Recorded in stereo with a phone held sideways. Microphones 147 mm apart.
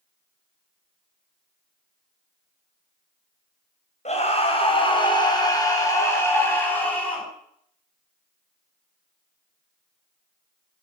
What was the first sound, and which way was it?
A scream, 50° left (ahead or behind).